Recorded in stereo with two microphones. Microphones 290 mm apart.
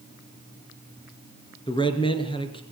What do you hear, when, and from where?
1.7 s a man speaking: 15° left (ahead or behind), 2.5 m